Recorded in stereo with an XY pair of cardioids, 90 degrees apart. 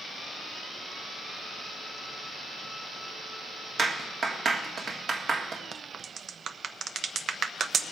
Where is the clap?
50° right, 1.7 m.